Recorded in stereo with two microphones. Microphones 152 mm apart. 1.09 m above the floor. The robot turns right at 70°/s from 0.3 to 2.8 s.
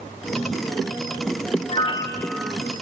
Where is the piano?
130° left, 1.1 m; by 2.5 s 175° right, 1.1 m.